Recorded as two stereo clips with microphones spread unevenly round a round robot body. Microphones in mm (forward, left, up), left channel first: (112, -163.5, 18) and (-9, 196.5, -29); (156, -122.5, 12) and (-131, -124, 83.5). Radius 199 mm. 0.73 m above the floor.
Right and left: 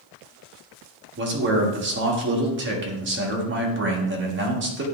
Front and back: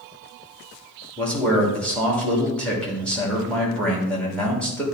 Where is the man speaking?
70° left, 1.5 m.